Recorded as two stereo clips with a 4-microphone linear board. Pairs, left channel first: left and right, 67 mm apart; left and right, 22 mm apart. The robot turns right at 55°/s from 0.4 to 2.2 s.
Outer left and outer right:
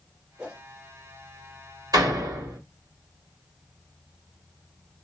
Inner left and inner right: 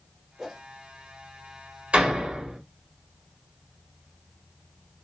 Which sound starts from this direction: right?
A door slam, at 1.9 s.